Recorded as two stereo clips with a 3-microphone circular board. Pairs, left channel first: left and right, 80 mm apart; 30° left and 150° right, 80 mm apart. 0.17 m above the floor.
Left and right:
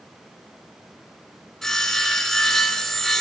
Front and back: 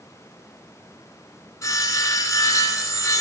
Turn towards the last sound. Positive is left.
turn(degrees=5)